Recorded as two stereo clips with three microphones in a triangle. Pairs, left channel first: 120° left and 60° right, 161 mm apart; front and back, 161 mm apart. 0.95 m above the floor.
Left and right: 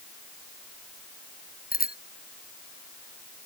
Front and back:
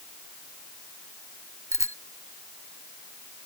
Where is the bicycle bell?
110° left.